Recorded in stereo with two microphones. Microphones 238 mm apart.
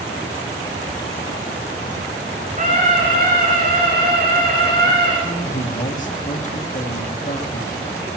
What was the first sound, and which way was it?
A scream, 35° right (ahead or behind).